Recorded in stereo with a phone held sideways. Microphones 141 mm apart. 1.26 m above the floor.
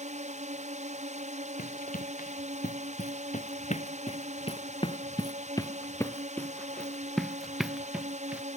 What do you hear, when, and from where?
0.0 s a drone: 60° right (ahead or behind)
1.6 s running footsteps: 80° left; by 8.4 s 10° right (ahead or behind)